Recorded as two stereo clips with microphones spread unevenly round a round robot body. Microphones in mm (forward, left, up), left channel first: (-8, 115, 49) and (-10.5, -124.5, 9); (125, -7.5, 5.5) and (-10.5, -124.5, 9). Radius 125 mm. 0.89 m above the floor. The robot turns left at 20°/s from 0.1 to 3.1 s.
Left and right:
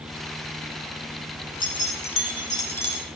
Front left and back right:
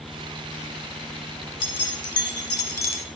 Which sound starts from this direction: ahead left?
Keys jangling, at 1.6 s.